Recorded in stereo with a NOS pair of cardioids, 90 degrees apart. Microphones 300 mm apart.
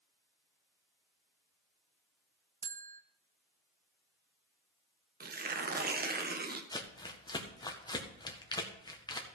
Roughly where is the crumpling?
Ahead.